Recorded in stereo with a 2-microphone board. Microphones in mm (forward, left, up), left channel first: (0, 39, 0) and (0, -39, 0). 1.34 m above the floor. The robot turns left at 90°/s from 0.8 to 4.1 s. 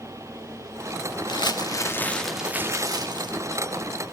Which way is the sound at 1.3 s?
90° left.